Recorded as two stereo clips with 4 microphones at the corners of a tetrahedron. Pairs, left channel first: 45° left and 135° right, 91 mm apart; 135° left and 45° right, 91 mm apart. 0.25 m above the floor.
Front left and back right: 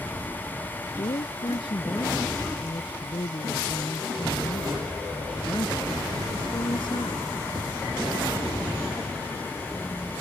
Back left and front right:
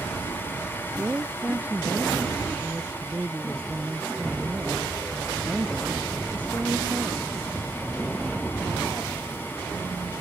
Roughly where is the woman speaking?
Ahead left.